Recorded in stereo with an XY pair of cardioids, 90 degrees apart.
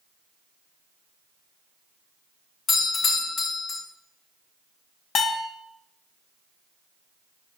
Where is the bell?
70° left, 1.5 m.